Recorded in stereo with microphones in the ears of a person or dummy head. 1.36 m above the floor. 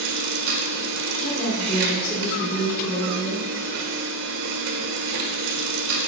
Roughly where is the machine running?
Right.